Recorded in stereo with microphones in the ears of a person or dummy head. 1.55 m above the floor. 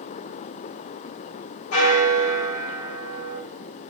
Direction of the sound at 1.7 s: 80° left.